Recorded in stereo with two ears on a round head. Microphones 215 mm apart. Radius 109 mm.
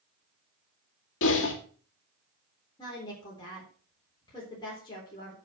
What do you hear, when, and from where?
1.2 s typing on a keyboard: 50° left (ahead or behind), 2.5 m
2.8 s a woman speaking: 20° left (ahead or behind), 3.5 m